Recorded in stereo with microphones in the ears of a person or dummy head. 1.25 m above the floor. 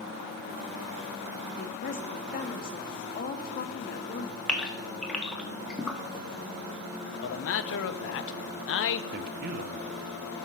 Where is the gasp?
Centre (ahead or behind), 1.4 m.